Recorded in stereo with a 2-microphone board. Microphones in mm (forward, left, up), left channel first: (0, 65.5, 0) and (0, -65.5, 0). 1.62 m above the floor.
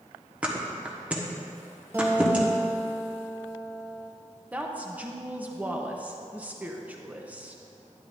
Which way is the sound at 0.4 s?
10° right (ahead or behind).